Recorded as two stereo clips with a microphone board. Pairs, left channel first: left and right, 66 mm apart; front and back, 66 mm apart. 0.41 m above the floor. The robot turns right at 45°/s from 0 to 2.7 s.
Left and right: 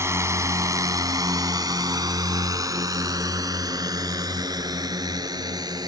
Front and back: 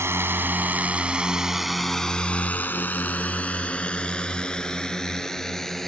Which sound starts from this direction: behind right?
A drone, at 0.0 s.